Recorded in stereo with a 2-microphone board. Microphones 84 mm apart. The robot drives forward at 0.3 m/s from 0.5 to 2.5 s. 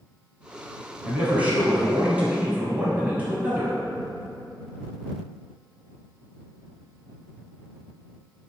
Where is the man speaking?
15° right (ahead or behind), 1.2 m; by 3.8 s 20° right (ahead or behind), 1.0 m.